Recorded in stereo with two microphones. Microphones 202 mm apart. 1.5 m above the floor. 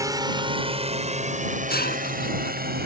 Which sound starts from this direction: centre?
A drone, at 0.0 s.